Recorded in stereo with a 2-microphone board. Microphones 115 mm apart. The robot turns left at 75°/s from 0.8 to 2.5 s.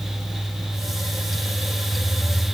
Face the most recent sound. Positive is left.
No sound to turn to.